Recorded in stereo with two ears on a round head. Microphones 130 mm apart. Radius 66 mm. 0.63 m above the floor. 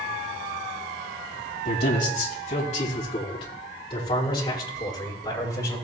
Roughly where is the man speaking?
Left.